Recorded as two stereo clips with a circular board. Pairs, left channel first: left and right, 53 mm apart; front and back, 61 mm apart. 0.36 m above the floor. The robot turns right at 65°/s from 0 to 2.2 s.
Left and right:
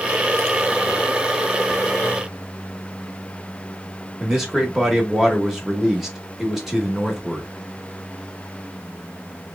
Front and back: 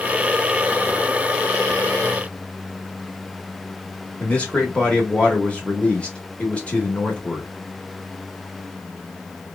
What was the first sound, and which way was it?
A man speaking, 15° right.